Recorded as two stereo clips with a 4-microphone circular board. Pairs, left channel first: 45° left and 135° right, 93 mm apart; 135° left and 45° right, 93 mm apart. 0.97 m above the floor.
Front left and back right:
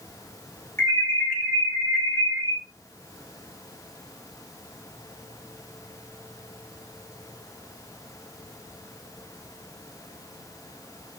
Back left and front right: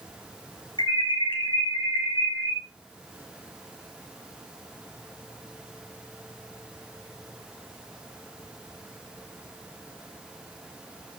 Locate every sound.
0.8 s an alarm: 110° left, 4 m